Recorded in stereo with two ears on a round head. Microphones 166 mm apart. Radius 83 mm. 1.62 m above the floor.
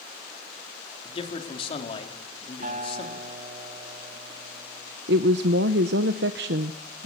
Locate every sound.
1.1 s a man speaking: 30° left (ahead or behind), 3 m
2.6 s a guitar: 45° right (ahead or behind), 2 m
5.1 s a woman speaking: 65° right (ahead or behind), 0.9 m